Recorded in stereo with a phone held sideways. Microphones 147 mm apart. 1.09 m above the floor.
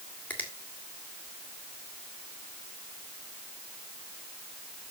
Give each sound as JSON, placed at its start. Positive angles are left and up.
{"t": 0.3, "sound": "a finger snap", "side_deg": 10, "distance_m": 2.0}